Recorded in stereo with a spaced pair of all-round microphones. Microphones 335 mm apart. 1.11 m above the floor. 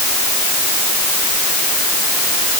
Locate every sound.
Only background noise.